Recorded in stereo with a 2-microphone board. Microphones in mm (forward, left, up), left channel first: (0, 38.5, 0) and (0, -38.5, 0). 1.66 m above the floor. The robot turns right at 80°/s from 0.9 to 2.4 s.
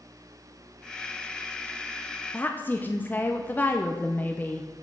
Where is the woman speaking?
25° left (ahead or behind), 0.7 m.